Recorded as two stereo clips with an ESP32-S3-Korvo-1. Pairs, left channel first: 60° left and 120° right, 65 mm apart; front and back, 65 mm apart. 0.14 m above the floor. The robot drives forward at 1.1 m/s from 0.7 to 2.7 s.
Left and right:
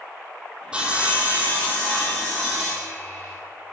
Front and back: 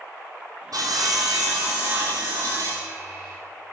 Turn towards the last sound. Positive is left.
turn(degrees=175)